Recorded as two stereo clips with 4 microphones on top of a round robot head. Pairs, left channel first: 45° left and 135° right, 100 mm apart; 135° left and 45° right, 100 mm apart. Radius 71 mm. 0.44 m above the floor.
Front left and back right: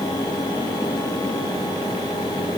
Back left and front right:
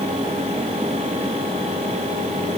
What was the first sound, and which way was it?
Only background noise.